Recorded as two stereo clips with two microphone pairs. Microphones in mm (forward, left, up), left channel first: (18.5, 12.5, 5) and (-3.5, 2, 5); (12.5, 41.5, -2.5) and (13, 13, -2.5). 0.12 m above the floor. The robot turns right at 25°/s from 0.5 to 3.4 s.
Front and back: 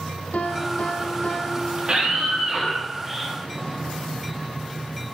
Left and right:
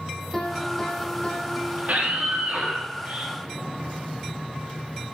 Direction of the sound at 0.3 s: 20° left.